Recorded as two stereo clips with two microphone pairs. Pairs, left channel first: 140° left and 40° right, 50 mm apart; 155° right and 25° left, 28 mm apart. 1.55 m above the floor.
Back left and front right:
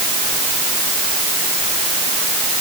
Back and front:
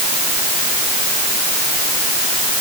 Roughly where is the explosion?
I don't hear an explosion.